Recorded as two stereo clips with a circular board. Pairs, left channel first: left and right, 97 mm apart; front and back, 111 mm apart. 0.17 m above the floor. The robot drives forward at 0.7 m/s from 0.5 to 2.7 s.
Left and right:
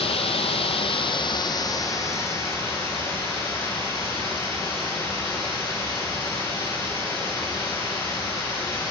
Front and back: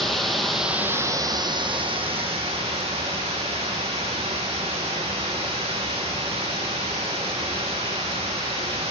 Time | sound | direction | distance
0.0 | running water | 90° left | 0.8 m